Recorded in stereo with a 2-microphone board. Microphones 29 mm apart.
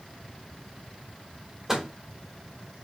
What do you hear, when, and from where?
1.7 s a microwave: 15° right (ahead or behind), 1.3 m